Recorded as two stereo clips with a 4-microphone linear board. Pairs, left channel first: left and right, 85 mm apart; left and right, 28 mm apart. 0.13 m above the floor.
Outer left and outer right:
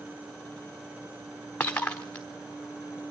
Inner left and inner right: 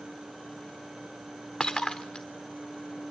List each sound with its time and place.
1.6 s breaking glass: 20° left (ahead or behind), 1.3 m